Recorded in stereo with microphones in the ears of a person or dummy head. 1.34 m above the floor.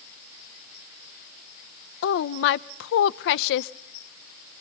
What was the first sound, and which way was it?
A woman speaking, 65° left (ahead or behind).